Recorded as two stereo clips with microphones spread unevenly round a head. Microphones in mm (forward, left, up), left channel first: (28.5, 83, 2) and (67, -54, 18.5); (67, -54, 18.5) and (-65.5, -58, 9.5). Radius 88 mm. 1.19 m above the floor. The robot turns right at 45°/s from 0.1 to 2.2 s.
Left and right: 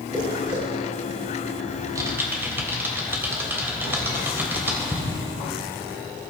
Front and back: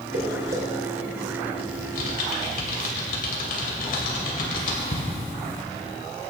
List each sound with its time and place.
0.1 s footsteps: 155° right, 4 m; by 0.6 s 135° right, 4 m
1.7 s typing on a keyboard: 20° right, 3 m; by 5.0 s straight ahead, 3 m